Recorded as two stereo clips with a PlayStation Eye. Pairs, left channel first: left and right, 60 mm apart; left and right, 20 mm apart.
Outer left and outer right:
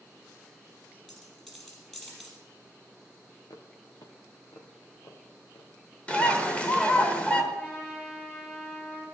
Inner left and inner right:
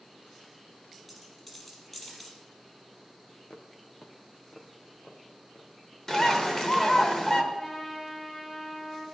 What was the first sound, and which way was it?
A dropped coin, 5° left (ahead or behind).